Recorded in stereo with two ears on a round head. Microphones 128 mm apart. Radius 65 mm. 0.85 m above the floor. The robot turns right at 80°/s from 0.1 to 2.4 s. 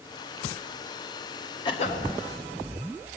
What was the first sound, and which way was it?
A cough, 30° left.